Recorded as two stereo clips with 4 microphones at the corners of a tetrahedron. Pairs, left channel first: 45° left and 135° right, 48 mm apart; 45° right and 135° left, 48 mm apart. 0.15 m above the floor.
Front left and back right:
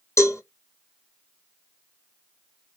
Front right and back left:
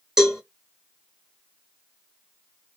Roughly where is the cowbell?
Ahead left.